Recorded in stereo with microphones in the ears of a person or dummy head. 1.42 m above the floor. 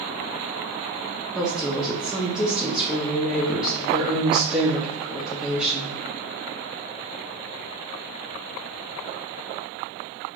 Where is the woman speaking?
Centre (ahead or behind), 0.5 m.